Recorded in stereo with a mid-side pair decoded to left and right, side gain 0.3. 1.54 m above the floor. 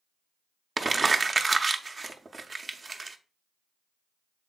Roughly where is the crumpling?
Ahead right.